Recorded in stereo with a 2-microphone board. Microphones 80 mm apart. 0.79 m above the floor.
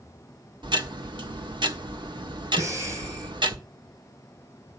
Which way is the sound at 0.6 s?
80° right.